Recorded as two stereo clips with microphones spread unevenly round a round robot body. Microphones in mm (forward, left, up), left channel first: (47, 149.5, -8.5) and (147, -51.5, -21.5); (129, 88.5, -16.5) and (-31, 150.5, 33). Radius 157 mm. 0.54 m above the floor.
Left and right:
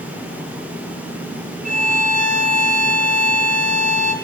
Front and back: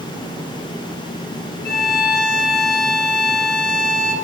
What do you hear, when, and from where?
1.6 s a violin: 15° right, 2.5 m